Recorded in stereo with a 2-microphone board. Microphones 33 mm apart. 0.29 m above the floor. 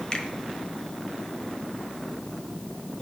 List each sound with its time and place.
0.1 s a finger snap: 30° left (ahead or behind), 1.1 m